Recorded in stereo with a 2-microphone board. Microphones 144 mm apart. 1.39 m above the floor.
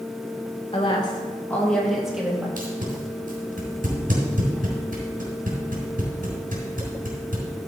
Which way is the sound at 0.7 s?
40° left (ahead or behind).